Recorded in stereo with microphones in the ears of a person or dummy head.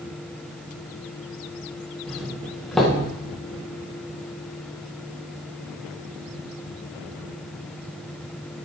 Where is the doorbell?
5° left (ahead or behind), 1.8 m.